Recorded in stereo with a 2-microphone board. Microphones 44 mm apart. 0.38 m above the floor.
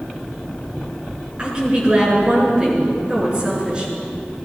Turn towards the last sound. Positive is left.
turn(degrees=-20)  # may be behind; listen again after turning